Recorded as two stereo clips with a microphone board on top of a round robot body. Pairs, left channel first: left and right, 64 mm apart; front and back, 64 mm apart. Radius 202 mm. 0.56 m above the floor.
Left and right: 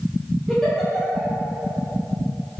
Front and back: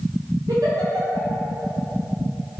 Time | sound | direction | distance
0.5 | a giggle | straight behind | 1.9 m